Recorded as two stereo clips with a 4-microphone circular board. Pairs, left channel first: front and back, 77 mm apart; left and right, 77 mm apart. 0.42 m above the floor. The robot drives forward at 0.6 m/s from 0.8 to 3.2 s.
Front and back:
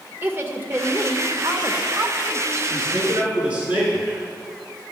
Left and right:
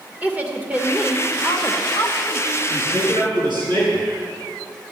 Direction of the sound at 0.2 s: 145° right.